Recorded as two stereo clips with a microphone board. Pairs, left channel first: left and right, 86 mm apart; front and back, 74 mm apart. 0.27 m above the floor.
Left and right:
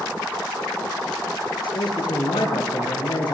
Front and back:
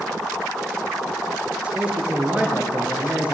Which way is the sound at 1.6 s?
105° left.